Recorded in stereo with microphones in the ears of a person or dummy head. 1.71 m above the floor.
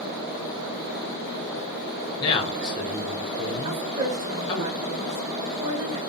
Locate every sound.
2.2 s a man speaking: 25° left (ahead or behind), 1.3 m
3.6 s a woman speaking: 35° right (ahead or behind), 1.3 m